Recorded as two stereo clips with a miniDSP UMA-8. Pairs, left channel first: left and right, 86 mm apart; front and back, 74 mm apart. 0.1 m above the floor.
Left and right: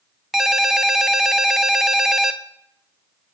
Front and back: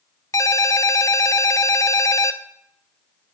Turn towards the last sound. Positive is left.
turn(degrees=-5)